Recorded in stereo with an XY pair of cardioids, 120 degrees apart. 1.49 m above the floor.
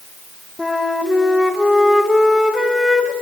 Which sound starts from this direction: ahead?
A flute, at 0.6 s.